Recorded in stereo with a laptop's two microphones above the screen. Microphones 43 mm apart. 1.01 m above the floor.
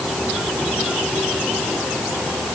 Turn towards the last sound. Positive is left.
No sound to turn to.